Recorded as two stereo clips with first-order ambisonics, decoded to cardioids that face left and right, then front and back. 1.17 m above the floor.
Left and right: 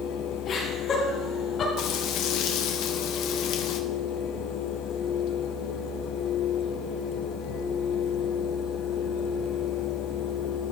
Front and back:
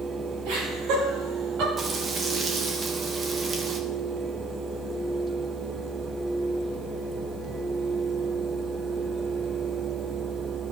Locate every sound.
0.5 s laughter: 155° left, 6.5 m
1.8 s frying: 115° left, 1.1 m